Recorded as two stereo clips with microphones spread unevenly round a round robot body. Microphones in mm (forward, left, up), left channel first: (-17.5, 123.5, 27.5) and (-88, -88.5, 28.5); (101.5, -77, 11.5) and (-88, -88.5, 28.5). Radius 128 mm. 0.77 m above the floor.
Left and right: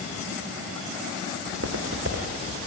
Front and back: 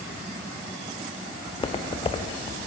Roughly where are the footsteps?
Ahead right.